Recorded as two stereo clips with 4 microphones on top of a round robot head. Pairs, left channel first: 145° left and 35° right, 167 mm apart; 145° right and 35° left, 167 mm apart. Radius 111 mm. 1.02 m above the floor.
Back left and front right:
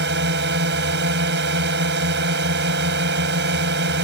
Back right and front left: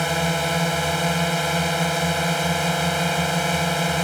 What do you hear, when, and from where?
0.0 s a drone: 55° right